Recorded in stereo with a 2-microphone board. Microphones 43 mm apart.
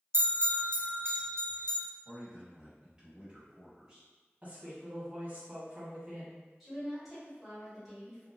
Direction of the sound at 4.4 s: 30° right (ahead or behind).